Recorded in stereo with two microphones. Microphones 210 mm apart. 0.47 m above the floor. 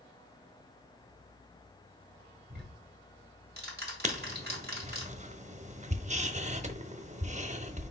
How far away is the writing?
About 0.8 m.